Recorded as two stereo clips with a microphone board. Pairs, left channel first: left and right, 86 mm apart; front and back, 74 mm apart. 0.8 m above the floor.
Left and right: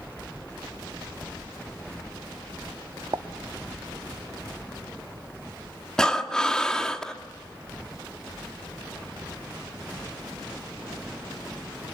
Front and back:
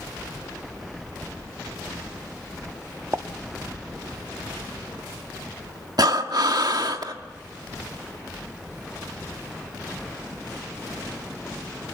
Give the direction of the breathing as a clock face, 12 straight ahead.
6 o'clock.